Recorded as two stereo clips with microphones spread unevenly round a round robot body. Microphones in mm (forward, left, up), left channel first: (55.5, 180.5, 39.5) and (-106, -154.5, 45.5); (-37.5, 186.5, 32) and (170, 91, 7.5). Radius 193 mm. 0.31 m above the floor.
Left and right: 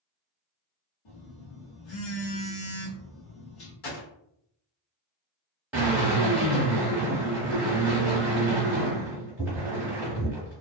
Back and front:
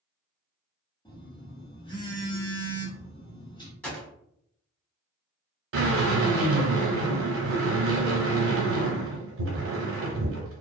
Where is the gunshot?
70° left, 1.5 m.